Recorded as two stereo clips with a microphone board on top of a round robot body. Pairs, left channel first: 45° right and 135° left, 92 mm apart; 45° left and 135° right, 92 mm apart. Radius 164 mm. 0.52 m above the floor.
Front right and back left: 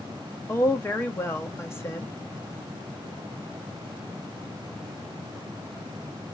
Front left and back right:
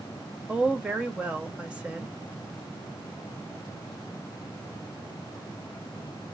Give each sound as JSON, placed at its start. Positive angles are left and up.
{"t": 0.5, "sound": "a woman speaking", "azimuth_deg": -70, "distance_m": 1.2}